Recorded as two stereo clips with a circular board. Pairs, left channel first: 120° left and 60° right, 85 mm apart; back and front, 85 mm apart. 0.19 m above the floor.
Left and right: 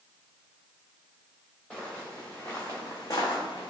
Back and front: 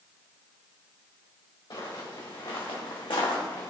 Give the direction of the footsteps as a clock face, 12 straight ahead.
5 o'clock.